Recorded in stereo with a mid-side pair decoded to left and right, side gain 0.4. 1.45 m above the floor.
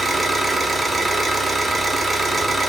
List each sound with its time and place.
0.0 s an engine running: 30° right, 1.0 m